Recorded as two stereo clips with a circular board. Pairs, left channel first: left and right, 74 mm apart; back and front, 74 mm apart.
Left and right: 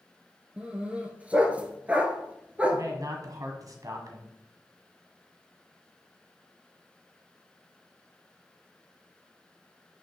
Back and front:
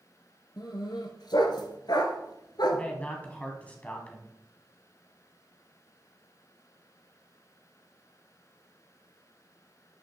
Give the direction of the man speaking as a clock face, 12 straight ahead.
4 o'clock.